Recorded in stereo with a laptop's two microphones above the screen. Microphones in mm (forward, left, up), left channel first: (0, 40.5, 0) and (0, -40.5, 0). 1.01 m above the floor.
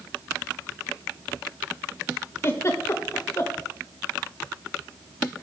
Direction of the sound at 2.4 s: 35° left (ahead or behind).